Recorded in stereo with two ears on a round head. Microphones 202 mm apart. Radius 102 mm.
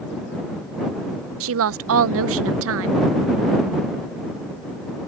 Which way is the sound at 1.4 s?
65° right (ahead or behind).